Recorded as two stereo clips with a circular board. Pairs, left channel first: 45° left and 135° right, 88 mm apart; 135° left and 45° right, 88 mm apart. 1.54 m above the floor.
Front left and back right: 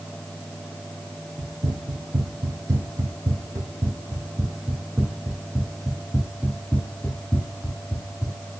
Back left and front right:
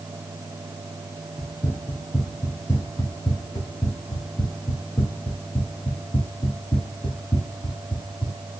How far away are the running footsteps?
About 3 m.